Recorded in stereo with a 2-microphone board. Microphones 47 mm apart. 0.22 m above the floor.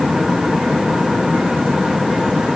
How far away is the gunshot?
I don't hear a gunshot.